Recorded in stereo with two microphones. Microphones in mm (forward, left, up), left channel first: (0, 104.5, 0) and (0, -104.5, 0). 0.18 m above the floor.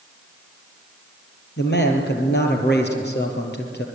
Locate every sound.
1.6 s a man speaking: 55° left (ahead or behind), 4 m